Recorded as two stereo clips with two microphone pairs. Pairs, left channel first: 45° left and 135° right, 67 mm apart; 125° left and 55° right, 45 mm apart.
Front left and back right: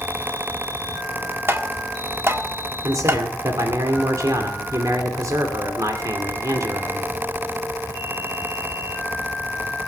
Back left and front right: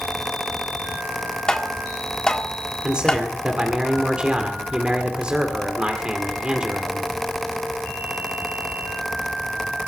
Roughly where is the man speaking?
Behind right.